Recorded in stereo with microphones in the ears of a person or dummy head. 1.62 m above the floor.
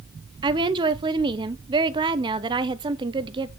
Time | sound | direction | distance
0.4 | a woman speaking | 25° right (ahead or behind) | 0.9 m